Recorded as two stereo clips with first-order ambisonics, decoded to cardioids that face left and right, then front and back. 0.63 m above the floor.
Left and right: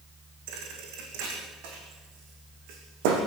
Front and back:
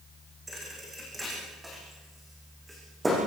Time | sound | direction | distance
0.5 | a thud | 100° right | 6 m